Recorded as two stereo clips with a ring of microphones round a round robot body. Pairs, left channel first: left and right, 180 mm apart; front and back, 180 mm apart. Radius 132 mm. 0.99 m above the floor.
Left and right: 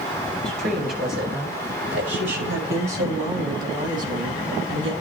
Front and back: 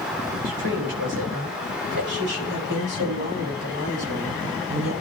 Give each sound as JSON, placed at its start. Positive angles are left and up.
{"t": 0.5, "sound": "a woman speaking", "azimuth_deg": -150, "distance_m": 5.5}